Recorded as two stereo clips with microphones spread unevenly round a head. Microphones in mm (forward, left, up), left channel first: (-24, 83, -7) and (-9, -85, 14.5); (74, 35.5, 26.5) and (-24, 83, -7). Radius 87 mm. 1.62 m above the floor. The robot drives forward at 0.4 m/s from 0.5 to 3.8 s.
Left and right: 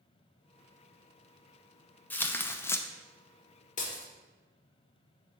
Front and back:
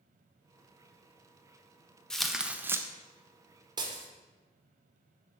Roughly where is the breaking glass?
Left.